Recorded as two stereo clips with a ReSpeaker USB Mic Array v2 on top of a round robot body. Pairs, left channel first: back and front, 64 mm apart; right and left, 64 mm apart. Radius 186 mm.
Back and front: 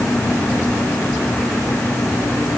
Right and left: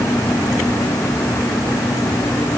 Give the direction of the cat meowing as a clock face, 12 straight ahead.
No cat meowing in this recording.